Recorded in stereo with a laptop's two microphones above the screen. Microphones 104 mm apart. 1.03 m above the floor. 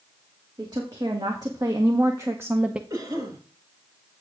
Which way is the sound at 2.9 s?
40° right (ahead or behind).